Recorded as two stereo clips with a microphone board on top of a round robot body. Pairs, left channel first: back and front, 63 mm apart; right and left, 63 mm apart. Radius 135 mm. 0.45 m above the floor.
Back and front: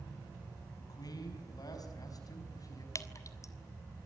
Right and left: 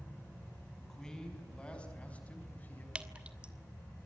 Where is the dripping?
160° left, 2 m.